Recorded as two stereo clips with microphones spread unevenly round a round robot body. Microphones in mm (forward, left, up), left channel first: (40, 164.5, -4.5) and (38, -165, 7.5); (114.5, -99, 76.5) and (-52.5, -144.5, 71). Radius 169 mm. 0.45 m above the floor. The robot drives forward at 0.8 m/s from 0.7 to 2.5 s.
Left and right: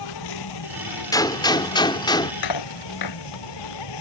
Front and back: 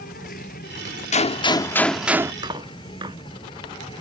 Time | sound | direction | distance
0.0 | an insect | 75° left | ?
1.1 | a gunshot | 20° left | ?
2.4 | cutlery clinking | 120° left | ?